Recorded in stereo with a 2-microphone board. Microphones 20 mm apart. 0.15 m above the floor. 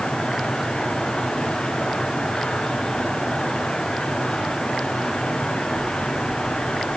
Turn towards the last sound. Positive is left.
No sound to turn to.